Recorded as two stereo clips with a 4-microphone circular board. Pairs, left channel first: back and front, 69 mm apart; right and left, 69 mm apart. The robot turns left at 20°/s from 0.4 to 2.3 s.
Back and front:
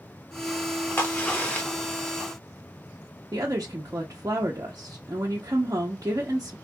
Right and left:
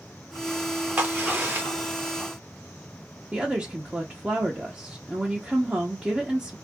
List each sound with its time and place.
1.0 s a crack: 140° left, 0.9 m; by 2.2 s 115° left, 0.9 m
3.3 s a woman speaking: 25° left, 0.6 m